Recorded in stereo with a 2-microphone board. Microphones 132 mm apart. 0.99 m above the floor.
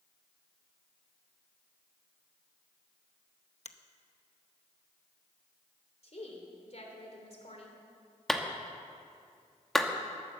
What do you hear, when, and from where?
3.6 s a finger snap: 60° left (ahead or behind), 0.8 m
6.0 s a woman speaking: 55° left (ahead or behind), 3 m
8.3 s a clap: 5° left (ahead or behind), 1.2 m